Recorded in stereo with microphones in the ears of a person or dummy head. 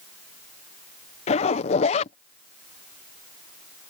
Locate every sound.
1.3 s a zipper: 45° left (ahead or behind)